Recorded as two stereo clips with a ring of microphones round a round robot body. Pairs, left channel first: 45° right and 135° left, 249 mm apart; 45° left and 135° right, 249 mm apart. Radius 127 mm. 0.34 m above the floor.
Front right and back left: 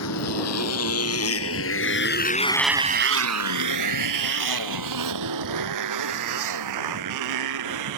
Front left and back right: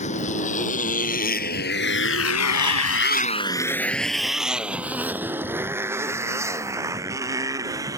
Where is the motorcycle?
20° right; by 8.0 s 150° left.